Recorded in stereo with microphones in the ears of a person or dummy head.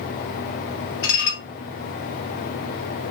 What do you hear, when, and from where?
1.0 s dishes clattering: 55° left (ahead or behind), 0.7 m